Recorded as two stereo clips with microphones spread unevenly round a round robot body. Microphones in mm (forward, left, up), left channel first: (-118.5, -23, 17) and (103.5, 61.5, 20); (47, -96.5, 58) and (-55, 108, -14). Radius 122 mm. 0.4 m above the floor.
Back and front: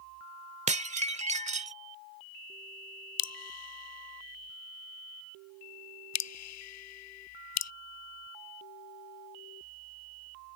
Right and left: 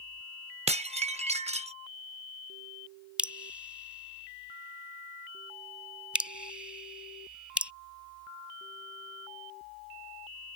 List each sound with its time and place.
0.7 s dishes clattering: 75° left
3.2 s dripping: 165° right